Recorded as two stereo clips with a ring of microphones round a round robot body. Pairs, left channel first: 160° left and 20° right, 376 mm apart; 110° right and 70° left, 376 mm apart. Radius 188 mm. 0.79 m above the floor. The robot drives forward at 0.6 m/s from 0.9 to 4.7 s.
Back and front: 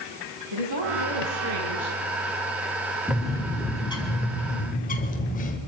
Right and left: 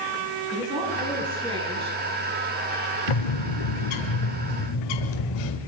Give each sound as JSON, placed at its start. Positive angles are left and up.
{"t": 0.5, "sound": "a woman speaking", "azimuth_deg": -10, "distance_m": 7.5}
{"t": 3.1, "sound": "a bird", "azimuth_deg": -110, "distance_m": 1.8}